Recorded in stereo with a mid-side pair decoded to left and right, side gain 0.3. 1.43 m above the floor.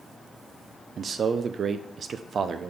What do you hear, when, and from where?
1.0 s a man speaking: 65° right, 0.5 m